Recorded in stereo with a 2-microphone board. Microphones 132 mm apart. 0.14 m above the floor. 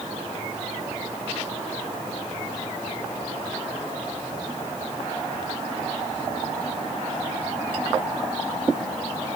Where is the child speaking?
I don't hear a child speaking.